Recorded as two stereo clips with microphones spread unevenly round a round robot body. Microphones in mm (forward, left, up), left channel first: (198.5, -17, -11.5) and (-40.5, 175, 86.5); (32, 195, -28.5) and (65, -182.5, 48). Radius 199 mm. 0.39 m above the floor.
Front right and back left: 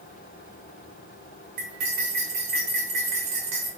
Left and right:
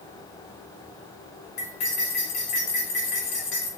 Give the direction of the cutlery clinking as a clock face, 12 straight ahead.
8 o'clock.